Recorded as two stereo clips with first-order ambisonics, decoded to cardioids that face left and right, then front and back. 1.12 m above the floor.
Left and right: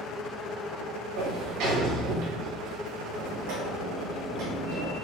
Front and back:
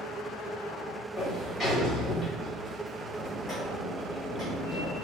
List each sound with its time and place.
1.2 s a sliding door: 70° right, 1.4 m